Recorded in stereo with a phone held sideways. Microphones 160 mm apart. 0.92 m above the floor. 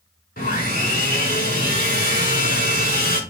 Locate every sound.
0.4 s sawing: 75° left (ahead or behind), 4 m